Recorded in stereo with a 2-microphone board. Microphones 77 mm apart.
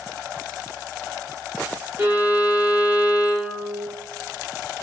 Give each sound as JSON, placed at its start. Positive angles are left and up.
{"t": 2.0, "sound": "a violin", "side_deg": -20, "distance_m": 1.9}